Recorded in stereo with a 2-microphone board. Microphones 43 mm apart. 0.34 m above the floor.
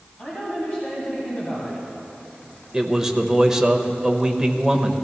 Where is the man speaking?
10° right (ahead or behind), 0.9 m.